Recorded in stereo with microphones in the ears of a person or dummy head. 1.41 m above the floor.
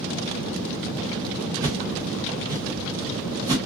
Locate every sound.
1.6 s a whoosh: 20° right (ahead or behind), 1.1 m